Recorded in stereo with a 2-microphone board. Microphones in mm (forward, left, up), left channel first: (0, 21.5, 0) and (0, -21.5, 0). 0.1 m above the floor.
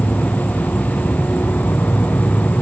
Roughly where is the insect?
Left.